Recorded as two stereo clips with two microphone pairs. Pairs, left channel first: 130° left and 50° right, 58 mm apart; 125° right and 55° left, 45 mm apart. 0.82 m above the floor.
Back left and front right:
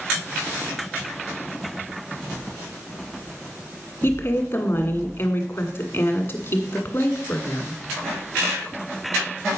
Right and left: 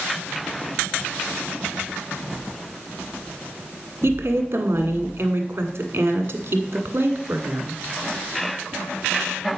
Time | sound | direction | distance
4.0 | a woman speaking | 90° left | 1.5 m